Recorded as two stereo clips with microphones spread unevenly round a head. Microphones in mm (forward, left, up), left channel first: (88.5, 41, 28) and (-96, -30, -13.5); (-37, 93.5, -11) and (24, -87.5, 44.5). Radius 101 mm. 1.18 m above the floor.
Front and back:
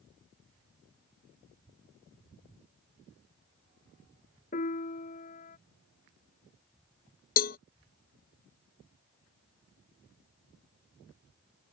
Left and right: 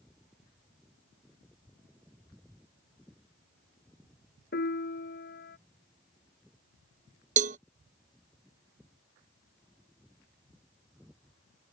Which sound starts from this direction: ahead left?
A piano, at 4.5 s.